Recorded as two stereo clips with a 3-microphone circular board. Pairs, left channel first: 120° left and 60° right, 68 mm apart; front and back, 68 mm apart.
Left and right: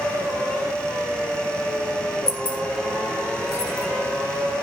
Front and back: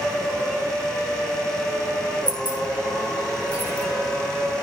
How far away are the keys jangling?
About 0.8 m.